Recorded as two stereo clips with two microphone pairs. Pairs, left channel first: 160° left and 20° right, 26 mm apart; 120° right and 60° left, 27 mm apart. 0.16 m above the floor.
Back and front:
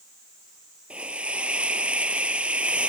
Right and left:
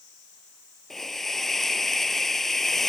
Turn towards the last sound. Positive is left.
turn(degrees=-45)